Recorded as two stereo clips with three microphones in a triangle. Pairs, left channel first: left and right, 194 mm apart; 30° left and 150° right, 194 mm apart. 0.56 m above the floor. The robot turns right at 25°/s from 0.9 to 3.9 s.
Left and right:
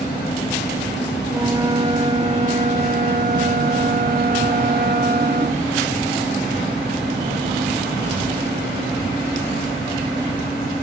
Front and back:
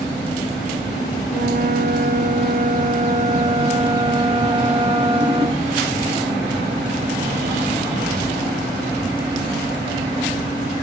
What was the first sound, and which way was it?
A flute, 160° right.